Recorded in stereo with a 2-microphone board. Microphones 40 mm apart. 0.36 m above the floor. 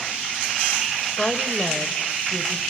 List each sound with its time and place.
1.2 s a woman speaking: 30° left (ahead or behind), 1.1 m; by 2.6 s 15° left (ahead or behind), 1.6 m